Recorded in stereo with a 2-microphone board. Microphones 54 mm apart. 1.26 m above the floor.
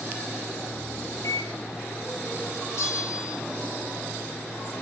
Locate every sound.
1.2 s a microwave: 90° left, 1.1 m
2.8 s a bell: 65° left (ahead or behind), 2 m